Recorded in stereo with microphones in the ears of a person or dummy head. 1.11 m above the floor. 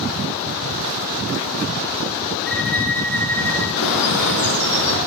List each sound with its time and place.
2.5 s a violin: centre (ahead or behind), 2.5 m
3.8 s a bird: 80° left, 6 m